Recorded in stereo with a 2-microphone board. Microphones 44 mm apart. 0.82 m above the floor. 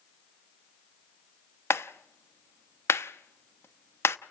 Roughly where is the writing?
I don't hear writing.